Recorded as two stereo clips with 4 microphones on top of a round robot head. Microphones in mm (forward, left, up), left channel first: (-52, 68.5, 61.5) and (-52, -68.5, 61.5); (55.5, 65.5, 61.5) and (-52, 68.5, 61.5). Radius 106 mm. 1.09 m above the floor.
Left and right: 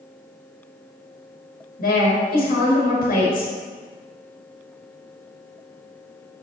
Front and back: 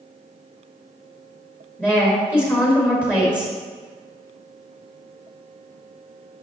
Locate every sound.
1.8 s a woman speaking: 70° left, 1.8 m